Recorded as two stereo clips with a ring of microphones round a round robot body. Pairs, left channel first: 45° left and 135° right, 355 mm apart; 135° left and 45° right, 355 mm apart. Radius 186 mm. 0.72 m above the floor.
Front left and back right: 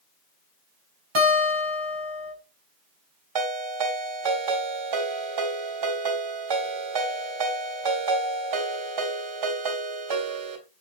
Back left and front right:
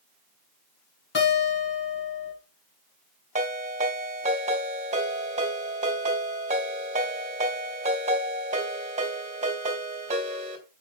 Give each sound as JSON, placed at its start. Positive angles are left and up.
{"t": 1.1, "sound": "a guitar", "azimuth_deg": -165, "distance_m": 5.0}
{"t": 3.4, "sound": "a ringtone", "azimuth_deg": -115, "distance_m": 3.0}